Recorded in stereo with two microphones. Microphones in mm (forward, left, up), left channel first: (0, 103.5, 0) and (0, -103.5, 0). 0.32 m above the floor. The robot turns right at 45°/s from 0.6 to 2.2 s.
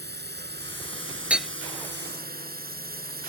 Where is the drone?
125° right; by 3.3 s 50° right.